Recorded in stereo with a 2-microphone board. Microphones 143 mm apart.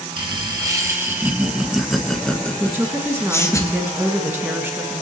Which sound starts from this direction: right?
Laughter, at 0.2 s.